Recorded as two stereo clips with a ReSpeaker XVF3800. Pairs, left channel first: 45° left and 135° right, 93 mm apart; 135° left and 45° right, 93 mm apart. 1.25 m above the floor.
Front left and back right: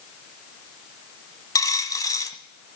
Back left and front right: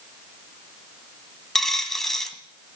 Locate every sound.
1.6 s a dropped coin: 50° left, 1.4 m